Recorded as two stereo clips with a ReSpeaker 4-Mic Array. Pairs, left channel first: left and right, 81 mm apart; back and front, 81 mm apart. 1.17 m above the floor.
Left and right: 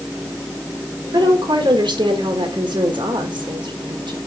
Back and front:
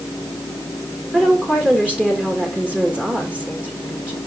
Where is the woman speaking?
75° right, 1.8 m.